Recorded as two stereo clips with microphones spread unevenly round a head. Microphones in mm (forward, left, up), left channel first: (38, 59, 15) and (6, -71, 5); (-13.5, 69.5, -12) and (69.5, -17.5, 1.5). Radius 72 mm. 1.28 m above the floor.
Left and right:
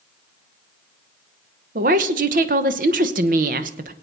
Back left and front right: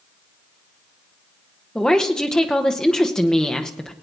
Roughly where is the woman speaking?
Behind right.